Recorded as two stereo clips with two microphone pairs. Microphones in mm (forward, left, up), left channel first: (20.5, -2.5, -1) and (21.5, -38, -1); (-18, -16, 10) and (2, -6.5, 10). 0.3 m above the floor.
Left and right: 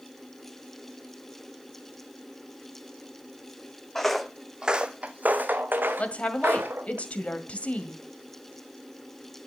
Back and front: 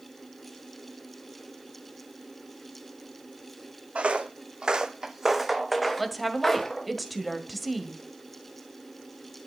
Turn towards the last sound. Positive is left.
turn(degrees=115)